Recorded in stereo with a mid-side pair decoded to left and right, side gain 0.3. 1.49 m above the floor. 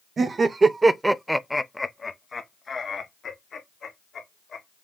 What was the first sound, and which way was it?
Laughter, 60° right.